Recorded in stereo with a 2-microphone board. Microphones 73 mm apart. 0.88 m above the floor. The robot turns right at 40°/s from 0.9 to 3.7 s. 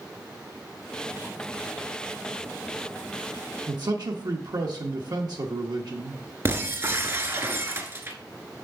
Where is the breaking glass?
35° right (ahead or behind), 1.0 m.